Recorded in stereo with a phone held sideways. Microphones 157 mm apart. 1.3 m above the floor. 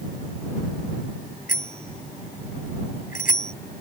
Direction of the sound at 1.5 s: 60° left (ahead or behind).